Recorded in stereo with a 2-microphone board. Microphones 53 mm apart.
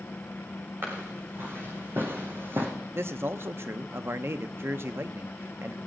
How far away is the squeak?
No squeak in this recording.